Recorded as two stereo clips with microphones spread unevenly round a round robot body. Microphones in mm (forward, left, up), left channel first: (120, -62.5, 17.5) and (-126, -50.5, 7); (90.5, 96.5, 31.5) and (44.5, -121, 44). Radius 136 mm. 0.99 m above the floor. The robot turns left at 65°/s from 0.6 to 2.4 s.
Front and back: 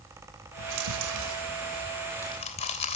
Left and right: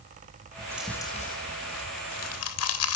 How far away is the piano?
No piano in this recording.